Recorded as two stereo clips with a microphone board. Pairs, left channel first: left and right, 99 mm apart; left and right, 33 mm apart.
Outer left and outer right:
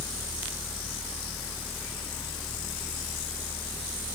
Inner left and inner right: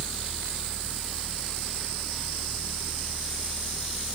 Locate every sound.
Only background noise.